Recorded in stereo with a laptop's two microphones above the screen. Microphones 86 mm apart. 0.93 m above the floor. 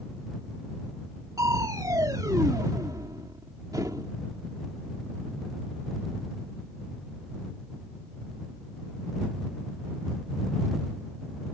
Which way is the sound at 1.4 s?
45° right (ahead or behind).